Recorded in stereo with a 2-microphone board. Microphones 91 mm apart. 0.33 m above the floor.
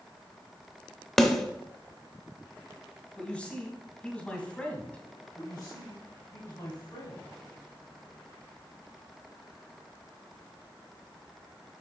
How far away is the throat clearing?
No throat clearing in this recording.